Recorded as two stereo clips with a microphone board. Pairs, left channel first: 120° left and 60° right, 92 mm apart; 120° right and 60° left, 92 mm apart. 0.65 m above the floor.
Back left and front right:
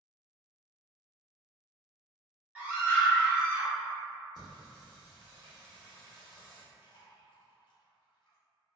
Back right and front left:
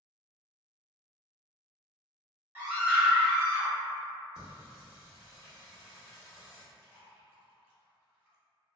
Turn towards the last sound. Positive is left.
turn(degrees=130)